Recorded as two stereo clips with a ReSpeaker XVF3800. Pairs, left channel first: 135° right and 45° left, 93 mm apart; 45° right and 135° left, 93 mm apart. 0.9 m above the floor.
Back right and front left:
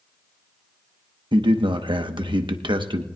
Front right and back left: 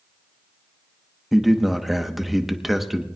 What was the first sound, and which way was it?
A man speaking, 50° left.